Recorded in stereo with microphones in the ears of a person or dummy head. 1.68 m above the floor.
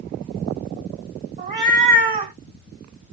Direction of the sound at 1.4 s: 35° right (ahead or behind).